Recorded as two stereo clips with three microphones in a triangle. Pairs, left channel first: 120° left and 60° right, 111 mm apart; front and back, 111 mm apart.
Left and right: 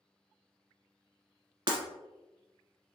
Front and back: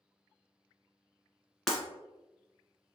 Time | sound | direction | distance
1.7 | breaking glass | 85° right | 1.1 m